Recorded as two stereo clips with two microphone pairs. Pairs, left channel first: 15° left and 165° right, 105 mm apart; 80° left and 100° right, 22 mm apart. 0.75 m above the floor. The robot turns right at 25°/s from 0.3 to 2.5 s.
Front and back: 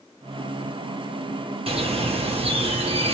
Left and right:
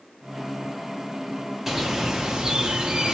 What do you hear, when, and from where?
1.7 s a bird: 175° right, 0.8 m; by 3.1 s 155° right, 0.8 m